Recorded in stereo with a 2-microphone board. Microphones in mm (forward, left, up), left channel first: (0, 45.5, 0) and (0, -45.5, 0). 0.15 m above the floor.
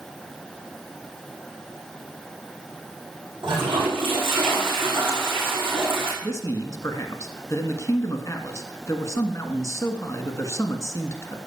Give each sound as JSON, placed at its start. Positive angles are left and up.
{"t": 3.4, "sound": "a toilet flushing", "side_deg": -65, "distance_m": 7.0}
{"t": 6.2, "sound": "a man speaking", "side_deg": 35, "distance_m": 1.6}